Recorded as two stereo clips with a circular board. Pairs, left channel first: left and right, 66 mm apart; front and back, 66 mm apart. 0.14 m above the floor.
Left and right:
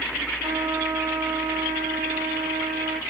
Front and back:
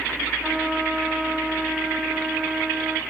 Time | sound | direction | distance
0.4 | a trumpet | 100° right | 6 m